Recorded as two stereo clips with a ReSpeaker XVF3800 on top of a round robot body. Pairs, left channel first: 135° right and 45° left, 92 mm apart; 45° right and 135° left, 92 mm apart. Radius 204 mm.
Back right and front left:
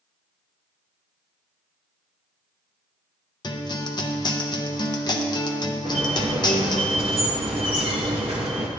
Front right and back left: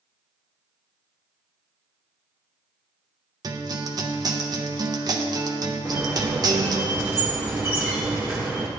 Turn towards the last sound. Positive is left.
turn(degrees=70)